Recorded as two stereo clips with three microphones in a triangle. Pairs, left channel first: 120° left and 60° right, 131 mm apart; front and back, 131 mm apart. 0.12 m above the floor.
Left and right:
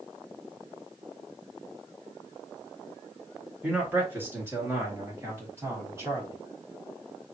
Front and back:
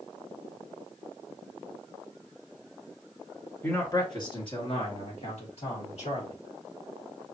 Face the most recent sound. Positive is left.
turn(degrees=5)